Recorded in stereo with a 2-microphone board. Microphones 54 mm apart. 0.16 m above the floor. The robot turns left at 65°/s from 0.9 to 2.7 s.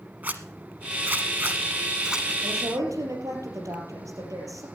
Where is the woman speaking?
60° right (ahead or behind), 3.5 m; by 4.7 s 70° right (ahead or behind), 3.5 m.